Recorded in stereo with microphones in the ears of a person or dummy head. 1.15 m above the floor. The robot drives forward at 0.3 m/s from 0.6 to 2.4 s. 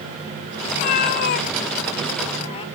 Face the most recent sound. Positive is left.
turn(degrees=30)  # may be behind; listen again after turning